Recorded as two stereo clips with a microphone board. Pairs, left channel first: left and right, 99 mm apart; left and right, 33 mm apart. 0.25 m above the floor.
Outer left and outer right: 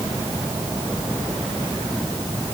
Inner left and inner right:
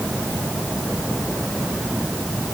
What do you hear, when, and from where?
Only background noise.